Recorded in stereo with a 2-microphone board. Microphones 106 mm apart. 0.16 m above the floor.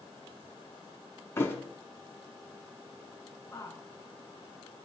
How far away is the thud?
About 0.7 m.